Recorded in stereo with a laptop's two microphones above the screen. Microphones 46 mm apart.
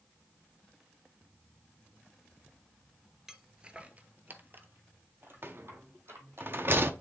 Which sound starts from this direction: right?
A rattle, at 5.4 s.